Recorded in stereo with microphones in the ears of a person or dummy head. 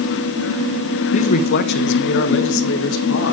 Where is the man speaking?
30° left (ahead or behind), 0.5 m; by 3.3 s 70° left (ahead or behind), 2 m.